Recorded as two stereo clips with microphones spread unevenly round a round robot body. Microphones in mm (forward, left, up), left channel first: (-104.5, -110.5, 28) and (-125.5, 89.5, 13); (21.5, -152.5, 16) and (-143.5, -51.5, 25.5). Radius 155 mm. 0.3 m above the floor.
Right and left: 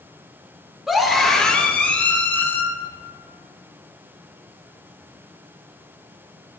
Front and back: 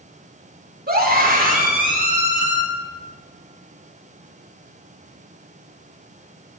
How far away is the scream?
About 4.5 m.